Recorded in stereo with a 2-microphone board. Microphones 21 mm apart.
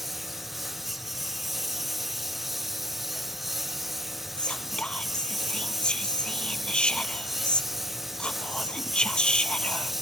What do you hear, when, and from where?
0.0 s a lawn mower: 5° right (ahead or behind); by 10.0 s 10° right (ahead or behind)
4.4 s whispering: 50° left (ahead or behind)